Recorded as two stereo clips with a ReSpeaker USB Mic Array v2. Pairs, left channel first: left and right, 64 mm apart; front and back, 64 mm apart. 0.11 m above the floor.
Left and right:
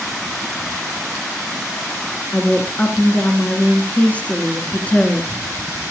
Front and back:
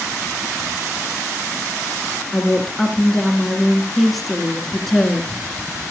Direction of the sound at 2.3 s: 80° left.